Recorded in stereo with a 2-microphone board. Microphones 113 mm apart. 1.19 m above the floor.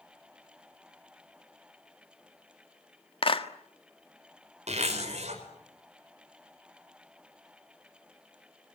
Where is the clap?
55° left (ahead or behind), 1.5 m.